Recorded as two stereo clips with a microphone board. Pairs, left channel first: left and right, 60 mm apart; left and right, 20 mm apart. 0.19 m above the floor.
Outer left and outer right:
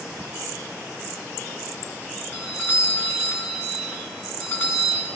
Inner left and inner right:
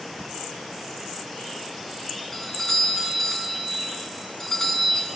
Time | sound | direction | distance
2.3 | a doorbell | 35° left (ahead or behind) | 2.5 m